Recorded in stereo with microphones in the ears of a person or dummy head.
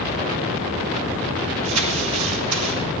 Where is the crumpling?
85° right, 1.9 m.